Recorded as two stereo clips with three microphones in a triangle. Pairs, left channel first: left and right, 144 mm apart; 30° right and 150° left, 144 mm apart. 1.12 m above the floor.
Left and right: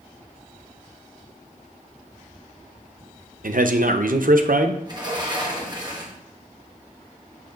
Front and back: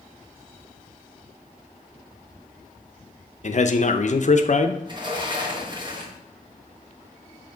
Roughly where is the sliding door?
Behind right.